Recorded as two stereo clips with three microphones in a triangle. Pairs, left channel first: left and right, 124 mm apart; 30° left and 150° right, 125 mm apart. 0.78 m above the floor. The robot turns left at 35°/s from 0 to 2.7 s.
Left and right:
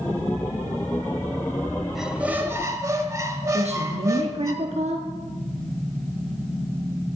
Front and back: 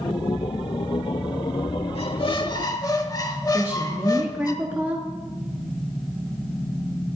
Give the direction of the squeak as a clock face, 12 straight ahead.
12 o'clock.